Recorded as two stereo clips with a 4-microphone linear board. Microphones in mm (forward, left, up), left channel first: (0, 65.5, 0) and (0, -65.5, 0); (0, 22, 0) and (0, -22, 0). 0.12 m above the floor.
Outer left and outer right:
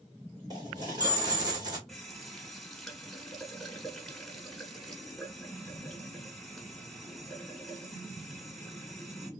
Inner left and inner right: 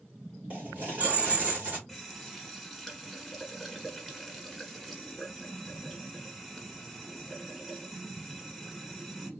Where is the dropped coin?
30° right (ahead or behind), 1.6 m.